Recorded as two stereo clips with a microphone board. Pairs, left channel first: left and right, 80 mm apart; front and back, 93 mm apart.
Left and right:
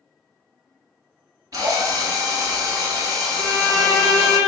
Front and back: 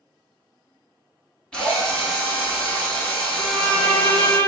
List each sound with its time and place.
1.5 s a drill: 75° right, 0.9 m
3.4 s a violin: 60° right, 0.7 m